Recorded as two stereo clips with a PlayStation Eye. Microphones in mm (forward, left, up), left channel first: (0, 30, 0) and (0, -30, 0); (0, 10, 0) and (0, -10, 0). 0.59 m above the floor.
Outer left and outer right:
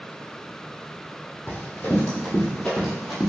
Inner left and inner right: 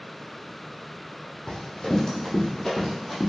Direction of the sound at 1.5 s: 35° left (ahead or behind).